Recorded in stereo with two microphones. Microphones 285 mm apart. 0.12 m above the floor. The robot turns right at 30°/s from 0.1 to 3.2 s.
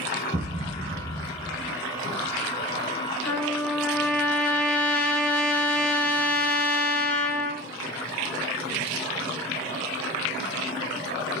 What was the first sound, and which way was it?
A thud, 20° right (ahead or behind).